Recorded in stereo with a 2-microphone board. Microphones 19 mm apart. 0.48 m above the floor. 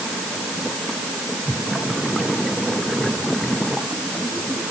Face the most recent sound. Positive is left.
No sound to turn to.